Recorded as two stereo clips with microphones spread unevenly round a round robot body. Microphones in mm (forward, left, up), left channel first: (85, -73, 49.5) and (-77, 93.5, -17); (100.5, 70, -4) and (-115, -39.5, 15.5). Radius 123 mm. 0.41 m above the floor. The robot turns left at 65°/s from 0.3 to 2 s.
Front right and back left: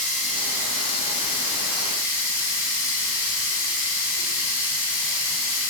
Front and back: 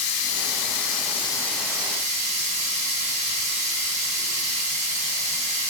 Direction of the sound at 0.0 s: 20° left.